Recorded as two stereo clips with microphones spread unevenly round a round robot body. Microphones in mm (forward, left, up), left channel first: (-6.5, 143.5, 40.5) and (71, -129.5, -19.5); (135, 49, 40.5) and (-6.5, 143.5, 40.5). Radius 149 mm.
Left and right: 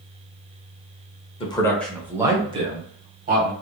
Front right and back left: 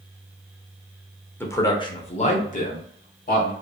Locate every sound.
1.4 s a man speaking: 30° left, 0.8 m; by 3.5 s 30° right, 1.5 m